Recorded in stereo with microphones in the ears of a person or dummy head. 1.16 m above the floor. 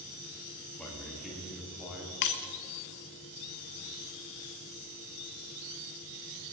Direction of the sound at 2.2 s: 50° left (ahead or behind).